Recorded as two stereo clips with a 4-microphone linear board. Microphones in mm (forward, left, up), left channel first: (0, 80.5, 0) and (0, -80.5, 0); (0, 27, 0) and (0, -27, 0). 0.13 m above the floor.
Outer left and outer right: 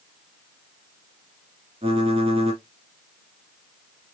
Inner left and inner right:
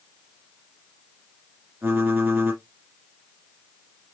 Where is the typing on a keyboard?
40° right (ahead or behind), 1.7 m.